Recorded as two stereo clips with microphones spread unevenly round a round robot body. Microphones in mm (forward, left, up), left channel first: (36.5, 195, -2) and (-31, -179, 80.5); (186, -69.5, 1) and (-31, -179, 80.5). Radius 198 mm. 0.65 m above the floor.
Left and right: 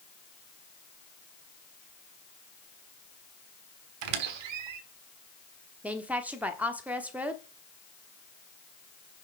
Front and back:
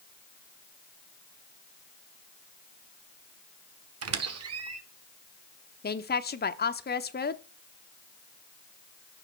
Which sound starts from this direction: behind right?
A squeak, at 4.0 s.